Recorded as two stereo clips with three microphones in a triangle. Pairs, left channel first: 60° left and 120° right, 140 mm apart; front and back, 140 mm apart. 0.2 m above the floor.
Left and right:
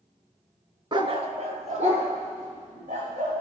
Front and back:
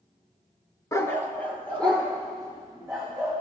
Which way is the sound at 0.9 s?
65° right.